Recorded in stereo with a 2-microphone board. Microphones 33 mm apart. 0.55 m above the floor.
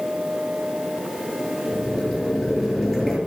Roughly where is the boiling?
Centre.